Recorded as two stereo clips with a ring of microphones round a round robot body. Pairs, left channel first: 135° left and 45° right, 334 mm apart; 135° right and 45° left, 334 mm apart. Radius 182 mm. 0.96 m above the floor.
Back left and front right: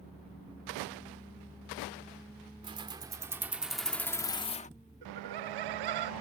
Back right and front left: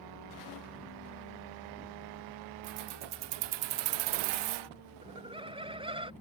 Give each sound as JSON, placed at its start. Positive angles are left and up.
{"t": 2.6, "sound": "keys jangling", "azimuth_deg": 30}
{"t": 5.0, "sound": "laughter", "azimuth_deg": -30}